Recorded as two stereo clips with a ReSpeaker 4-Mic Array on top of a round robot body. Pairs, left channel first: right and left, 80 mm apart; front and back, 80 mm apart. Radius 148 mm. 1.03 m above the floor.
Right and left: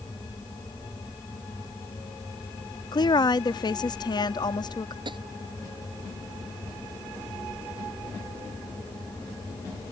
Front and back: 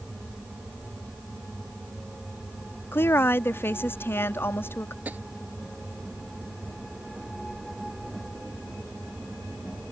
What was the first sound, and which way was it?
A woman speaking, 60° right.